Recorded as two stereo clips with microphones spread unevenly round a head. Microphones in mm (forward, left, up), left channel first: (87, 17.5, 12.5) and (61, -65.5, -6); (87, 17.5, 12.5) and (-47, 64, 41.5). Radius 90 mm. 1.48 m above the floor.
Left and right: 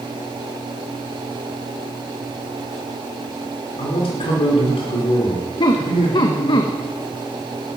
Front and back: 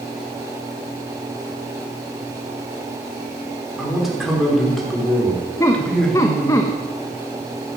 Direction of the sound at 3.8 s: 75° left.